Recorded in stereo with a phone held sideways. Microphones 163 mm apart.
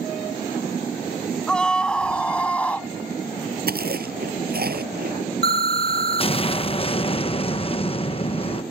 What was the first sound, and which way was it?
A scream, 5° left (ahead or behind).